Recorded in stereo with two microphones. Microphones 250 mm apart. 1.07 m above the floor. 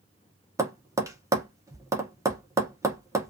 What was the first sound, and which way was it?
Tapping, 10° right (ahead or behind).